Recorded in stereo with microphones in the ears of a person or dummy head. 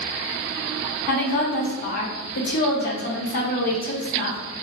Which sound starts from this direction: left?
A woman speaking, at 1.1 s.